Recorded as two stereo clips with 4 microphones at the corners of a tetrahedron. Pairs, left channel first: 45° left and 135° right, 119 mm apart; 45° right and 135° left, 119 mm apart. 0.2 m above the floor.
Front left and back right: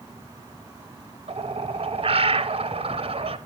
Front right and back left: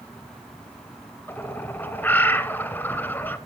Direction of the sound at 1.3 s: 115° right.